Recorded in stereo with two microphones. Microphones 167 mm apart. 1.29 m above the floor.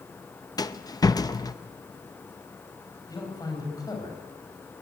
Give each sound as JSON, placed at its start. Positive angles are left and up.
{"t": 0.6, "sound": "a rattle", "side_deg": 25, "distance_m": 0.7}
{"t": 3.1, "sound": "a man speaking", "side_deg": 25, "distance_m": 6.5}